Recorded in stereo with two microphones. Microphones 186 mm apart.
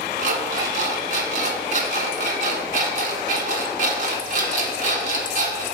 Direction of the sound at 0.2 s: 45° right (ahead or behind).